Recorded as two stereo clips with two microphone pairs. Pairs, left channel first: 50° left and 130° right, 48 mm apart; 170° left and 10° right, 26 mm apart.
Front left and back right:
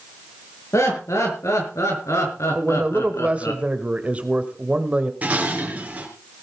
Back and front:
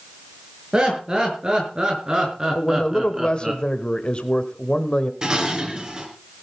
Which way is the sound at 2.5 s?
170° right.